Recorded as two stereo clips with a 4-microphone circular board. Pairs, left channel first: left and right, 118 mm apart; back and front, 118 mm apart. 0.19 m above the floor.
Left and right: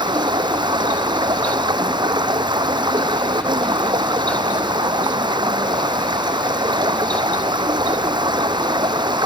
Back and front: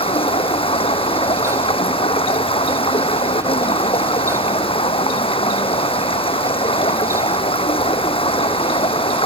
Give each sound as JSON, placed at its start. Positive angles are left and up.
{"t": 0.0, "sound": "running water", "azimuth_deg": -140}